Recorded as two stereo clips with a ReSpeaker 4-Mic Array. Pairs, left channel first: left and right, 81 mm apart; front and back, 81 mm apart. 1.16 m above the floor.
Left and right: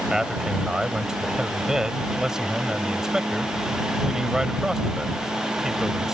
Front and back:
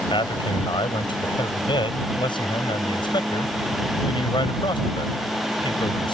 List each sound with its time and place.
0.1 s a man speaking: 5° right